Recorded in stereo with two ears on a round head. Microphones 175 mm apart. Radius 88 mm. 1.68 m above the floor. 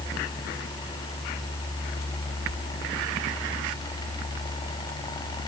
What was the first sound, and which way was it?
Only background noise.